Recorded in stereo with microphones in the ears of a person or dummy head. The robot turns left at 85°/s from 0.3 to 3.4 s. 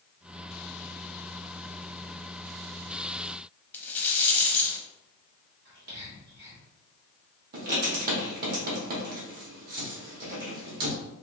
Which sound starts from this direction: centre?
A rattle, at 3.7 s.